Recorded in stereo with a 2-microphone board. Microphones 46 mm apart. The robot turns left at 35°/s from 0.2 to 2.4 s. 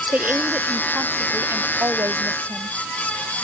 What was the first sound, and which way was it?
A woman speaking, 35° right.